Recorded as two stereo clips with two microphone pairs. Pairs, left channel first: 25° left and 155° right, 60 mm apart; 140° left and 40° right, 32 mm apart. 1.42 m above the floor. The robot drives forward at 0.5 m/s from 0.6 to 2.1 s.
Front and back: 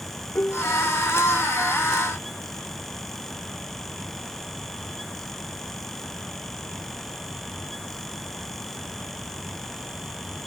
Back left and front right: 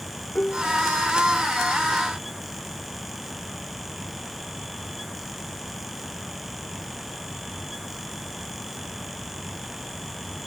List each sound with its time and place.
0.3 s dishes clattering: 85° left